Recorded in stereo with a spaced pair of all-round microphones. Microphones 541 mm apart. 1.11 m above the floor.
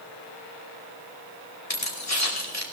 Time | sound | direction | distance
1.7 | keys jangling | 45° left (ahead or behind) | 2.5 m